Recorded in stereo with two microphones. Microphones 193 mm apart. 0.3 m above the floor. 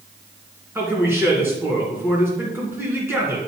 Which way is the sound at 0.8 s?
15° right (ahead or behind).